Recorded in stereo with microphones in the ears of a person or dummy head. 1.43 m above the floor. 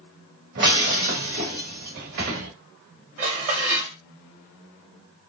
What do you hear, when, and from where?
0.6 s breaking glass: 40° right (ahead or behind), 1.5 m
3.2 s dishes clattering: 40° right (ahead or behind), 2 m